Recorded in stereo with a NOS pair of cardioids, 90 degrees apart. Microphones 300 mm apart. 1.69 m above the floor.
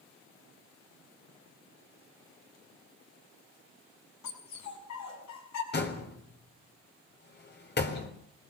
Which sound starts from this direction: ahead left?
A door slam, at 5.7 s.